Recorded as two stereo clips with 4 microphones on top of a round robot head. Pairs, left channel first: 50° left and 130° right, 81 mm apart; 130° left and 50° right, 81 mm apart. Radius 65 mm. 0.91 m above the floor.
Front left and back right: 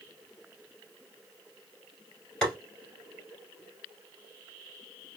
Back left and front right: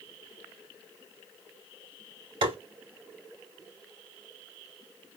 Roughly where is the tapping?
Ahead right.